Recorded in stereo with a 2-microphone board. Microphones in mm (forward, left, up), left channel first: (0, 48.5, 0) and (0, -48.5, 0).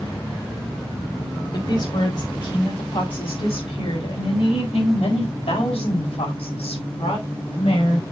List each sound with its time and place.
1.5 s a woman speaking: 50° left (ahead or behind), 4.5 m; by 8.0 s 80° left, 5 m